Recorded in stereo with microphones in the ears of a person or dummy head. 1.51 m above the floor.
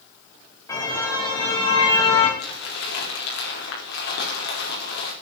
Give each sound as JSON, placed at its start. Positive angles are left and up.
{"t": 0.7, "sound": "a car horn", "side_deg": 20, "distance_m": 5.0}
{"t": 2.4, "sound": "crumpling", "side_deg": 65, "distance_m": 5.0}